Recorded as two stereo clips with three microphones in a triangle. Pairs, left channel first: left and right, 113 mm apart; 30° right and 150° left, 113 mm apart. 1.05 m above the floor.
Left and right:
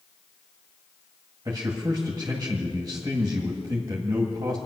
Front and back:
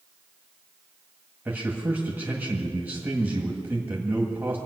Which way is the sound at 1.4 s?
140° right.